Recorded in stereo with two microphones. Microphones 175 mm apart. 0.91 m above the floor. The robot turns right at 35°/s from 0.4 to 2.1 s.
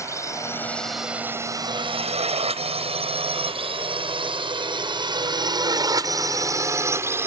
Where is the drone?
15° left (ahead or behind); by 7.3 s 15° right (ahead or behind).